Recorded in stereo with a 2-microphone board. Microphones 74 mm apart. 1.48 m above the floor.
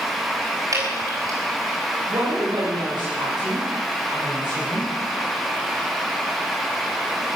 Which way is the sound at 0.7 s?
50° right (ahead or behind).